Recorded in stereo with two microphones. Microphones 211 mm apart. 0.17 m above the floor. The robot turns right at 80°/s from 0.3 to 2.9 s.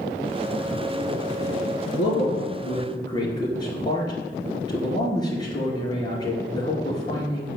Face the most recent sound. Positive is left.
turn(degrees=160)